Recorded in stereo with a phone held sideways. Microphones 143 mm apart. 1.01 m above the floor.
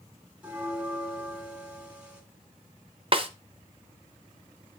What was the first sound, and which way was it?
A bell, 10° right (ahead or behind).